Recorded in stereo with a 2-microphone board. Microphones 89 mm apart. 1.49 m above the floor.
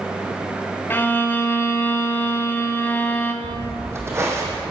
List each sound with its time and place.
0.9 s a violin: 20° left (ahead or behind), 0.7 m
3.4 s footsteps: 25° right (ahead or behind), 2.0 m; by 4.6 s 35° right (ahead or behind), 3 m